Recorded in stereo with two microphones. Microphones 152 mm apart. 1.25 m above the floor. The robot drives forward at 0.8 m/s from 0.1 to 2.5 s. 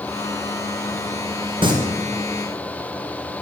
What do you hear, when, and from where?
1.6 s singing: 30° right (ahead or behind), 1.0 m